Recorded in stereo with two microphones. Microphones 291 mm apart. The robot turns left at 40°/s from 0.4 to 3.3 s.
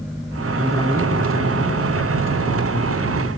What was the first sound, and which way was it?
A man speaking, 175° left.